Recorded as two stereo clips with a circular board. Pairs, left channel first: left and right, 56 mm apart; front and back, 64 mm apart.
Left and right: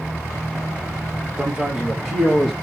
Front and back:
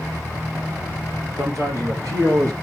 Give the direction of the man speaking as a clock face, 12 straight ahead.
5 o'clock.